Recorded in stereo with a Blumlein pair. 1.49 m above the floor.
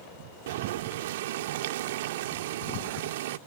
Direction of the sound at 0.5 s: 55° right.